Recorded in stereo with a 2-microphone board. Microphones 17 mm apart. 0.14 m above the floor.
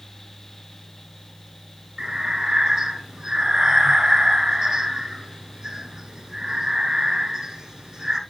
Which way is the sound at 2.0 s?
40° right (ahead or behind).